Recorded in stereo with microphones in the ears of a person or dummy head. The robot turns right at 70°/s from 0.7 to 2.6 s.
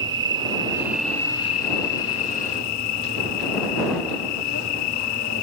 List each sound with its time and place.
0.0 s an insect: 20° right; by 5.4 s 110° left